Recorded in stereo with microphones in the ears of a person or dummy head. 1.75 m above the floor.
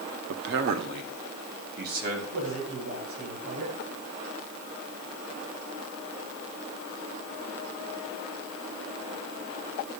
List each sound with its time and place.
0.3 s a man speaking: 65° right (ahead or behind), 0.8 m; by 2.2 s 55° right (ahead or behind), 3 m
2.3 s a man speaking: 80° right, 8 m